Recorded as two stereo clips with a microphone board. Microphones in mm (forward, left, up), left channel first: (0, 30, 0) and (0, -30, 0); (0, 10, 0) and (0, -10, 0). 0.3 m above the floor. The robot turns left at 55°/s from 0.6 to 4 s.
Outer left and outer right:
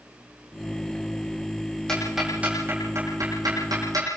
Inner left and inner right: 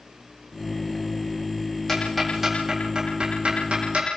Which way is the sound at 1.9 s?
10° left (ahead or behind).